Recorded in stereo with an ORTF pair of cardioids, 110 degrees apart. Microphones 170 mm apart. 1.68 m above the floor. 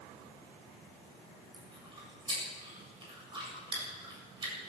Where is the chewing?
30° right, 8 m.